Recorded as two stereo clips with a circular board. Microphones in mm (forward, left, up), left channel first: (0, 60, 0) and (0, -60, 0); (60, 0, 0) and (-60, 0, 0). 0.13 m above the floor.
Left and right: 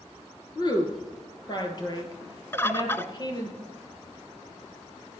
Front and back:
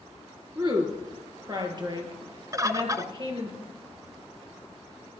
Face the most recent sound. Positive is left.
turn(degrees=145)